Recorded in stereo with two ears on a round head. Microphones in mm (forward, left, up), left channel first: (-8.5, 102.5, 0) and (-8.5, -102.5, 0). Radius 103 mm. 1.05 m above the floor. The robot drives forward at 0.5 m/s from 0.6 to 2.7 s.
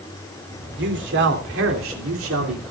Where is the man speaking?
50° right (ahead or behind), 3 m; by 2.7 s 70° right (ahead or behind), 2.5 m.